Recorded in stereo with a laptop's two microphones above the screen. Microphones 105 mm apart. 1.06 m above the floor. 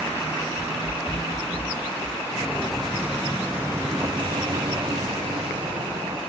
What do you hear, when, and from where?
0.6 s running footsteps: 55° left (ahead or behind), 8.5 m; by 2.2 s 40° left (ahead or behind), 8.5 m
2.3 s footsteps: 15° left (ahead or behind), 1.9 m; by 6.2 s 60° right (ahead or behind), 2.5 m